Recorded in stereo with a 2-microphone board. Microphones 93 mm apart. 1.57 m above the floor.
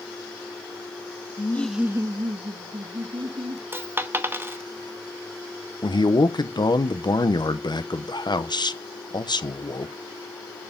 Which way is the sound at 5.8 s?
50° left (ahead or behind).